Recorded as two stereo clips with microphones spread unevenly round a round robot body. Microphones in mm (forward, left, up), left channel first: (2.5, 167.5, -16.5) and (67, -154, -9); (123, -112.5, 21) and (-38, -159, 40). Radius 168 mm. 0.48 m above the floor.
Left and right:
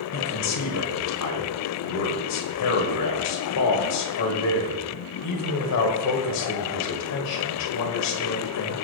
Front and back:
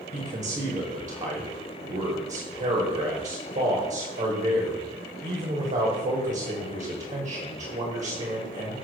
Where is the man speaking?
140° left, 1.7 m.